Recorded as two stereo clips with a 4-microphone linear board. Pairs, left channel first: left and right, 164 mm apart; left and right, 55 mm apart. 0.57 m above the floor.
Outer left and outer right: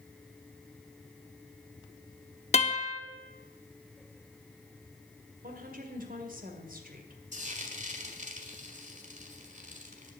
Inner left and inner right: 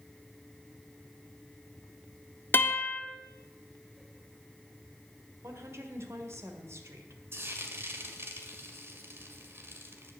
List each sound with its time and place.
2.5 s a guitar: 40° left (ahead or behind), 1.1 m
5.4 s a woman speaking: 60° right (ahead or behind), 1.9 m
7.3 s frying: 50° right (ahead or behind), 1.7 m